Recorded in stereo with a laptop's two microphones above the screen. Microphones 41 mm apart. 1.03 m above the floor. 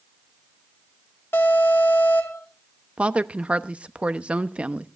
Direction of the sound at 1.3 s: 60° left (ahead or behind).